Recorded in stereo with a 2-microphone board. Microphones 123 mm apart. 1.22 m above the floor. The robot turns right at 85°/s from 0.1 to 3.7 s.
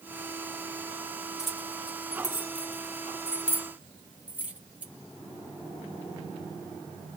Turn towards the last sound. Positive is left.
turn(degrees=-10)  # may be behind; listen again after turning